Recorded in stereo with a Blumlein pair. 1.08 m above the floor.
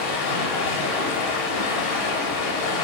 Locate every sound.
0.0 s running water: 50° left, 0.9 m